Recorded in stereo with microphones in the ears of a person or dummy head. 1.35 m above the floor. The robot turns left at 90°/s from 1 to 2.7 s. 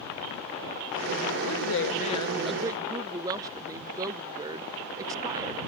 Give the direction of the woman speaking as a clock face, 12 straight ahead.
9 o'clock.